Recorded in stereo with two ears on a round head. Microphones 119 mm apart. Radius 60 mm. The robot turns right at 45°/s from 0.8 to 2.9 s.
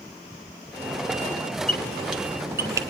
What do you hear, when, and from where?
1.7 s a squeak: 10° left (ahead or behind), 1.4 m; by 2.9 s 30° right (ahead or behind), 1.4 m